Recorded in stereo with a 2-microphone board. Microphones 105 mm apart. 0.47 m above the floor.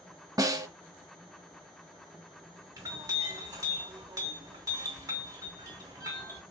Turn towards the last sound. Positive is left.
turn(degrees=-40)  # may be behind; listen again after turning